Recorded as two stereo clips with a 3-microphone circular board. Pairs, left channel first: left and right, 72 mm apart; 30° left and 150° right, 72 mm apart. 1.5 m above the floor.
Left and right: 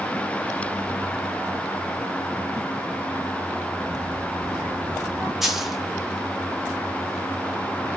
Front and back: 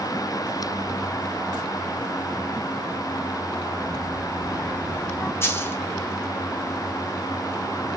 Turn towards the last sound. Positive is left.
turn(degrees=-5)